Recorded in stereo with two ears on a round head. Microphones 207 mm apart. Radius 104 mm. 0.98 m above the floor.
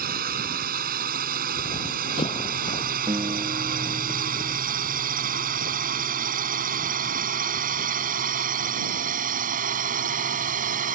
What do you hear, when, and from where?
0.0 s a drone: 40° right (ahead or behind); by 11.0 s 35° right (ahead or behind)
1.6 s running footsteps: 20° left (ahead or behind); by 4.1 s 15° left (ahead or behind)
3.1 s a guitar: 20° right (ahead or behind)